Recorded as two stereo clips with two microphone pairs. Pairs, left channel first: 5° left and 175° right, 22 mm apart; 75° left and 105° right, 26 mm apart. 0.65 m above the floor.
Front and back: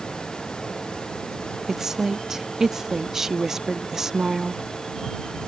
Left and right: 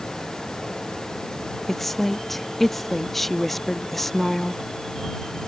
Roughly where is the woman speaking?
Behind left.